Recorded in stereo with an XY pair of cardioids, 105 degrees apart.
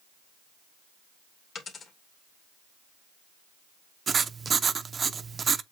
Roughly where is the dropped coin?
Ahead left.